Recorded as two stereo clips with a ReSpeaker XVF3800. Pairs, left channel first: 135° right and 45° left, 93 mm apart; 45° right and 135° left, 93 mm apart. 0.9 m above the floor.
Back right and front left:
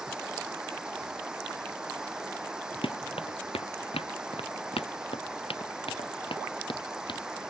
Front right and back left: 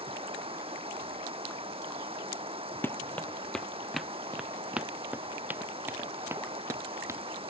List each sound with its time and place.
0.0 s running water: 125° left
2.8 s running footsteps: 115° right; by 7.2 s 165° right